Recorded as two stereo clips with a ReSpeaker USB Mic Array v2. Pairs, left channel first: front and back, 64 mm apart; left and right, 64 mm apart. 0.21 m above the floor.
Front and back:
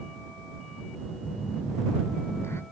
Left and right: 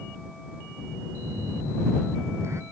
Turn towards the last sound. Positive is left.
turn(degrees=-45)